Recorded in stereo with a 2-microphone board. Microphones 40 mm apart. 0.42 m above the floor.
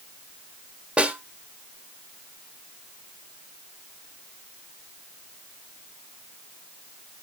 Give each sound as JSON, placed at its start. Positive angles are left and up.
{"t": 1.0, "sound": "a snare drum", "side_deg": -30, "distance_m": 1.2}